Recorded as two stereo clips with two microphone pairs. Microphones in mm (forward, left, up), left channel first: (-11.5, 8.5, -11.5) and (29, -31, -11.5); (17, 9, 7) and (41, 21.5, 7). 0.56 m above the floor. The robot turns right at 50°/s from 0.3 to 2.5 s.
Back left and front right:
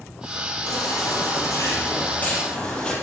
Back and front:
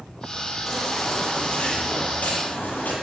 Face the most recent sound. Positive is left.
turn(degrees=-150)